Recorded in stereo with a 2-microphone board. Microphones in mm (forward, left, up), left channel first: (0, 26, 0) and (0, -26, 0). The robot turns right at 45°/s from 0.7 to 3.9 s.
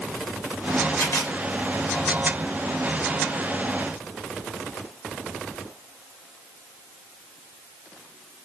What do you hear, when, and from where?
1.0 s a camera shutter: 65° left (ahead or behind), 2.5 m; by 1.3 s 45° left (ahead or behind), 2.5 m